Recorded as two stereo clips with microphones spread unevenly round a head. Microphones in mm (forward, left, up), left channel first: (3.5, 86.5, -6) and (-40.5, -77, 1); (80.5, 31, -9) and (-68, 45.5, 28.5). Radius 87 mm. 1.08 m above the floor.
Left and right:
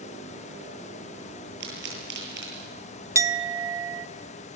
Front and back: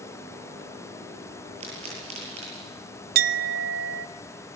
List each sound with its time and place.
1.6 s a pop: 130° right, 9.5 m
3.1 s a clink: straight behind, 0.9 m